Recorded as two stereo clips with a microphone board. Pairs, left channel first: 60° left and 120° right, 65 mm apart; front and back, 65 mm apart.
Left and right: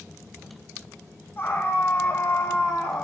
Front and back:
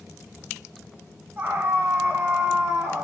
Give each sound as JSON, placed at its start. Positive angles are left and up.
{"t": 1.4, "sound": "a scream", "azimuth_deg": 125, "distance_m": 6.0}